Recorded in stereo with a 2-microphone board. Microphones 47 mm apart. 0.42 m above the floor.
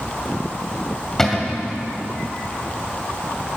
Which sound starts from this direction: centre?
A cupboard door, at 1.2 s.